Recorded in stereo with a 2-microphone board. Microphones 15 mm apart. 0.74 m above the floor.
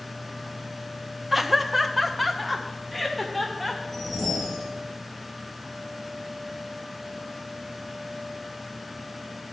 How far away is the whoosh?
About 5 m.